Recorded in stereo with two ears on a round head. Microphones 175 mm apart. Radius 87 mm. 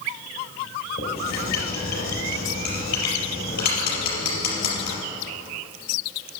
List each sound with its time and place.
1.0 s writing: 50° left (ahead or behind), 4.5 m